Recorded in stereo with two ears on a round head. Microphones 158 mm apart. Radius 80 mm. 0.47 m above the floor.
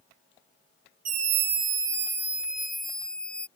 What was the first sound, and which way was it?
A scream, 45° right (ahead or behind).